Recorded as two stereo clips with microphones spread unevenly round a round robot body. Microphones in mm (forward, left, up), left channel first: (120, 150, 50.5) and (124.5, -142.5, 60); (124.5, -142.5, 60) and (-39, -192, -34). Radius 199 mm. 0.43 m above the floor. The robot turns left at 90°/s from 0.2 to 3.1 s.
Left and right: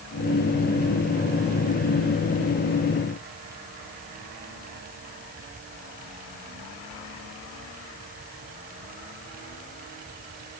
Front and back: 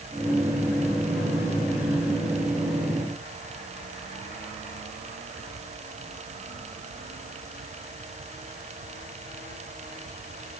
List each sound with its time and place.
Only background noise.